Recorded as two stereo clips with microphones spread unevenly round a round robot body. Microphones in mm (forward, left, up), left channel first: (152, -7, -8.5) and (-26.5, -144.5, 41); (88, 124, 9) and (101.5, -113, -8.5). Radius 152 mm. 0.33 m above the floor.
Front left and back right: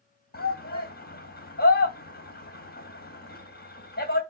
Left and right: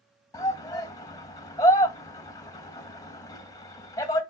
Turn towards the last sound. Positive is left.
turn(degrees=20)